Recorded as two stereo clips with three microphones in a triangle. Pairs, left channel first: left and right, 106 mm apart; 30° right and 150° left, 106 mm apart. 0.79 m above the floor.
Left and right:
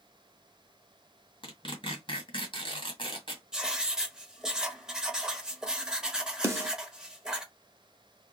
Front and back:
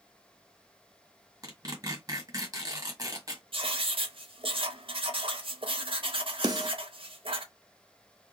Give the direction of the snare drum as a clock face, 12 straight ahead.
5 o'clock.